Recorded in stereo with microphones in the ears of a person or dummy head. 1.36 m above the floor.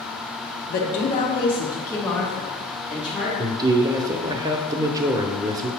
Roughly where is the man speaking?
Right.